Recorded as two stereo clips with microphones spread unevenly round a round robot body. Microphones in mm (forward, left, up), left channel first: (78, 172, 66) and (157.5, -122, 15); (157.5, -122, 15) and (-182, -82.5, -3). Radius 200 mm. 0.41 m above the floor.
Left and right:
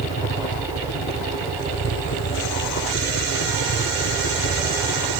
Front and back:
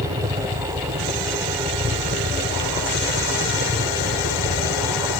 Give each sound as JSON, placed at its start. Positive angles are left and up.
{"t": 0.0, "sound": "a helicopter", "azimuth_deg": 115}